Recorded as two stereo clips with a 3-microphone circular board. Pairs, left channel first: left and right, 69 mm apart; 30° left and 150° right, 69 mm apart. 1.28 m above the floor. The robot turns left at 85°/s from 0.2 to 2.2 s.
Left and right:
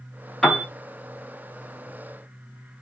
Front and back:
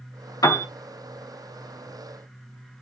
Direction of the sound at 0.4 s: 5° left.